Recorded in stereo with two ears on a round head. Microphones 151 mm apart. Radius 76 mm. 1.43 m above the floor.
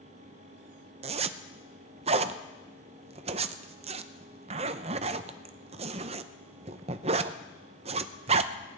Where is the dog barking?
I don't hear a dog barking.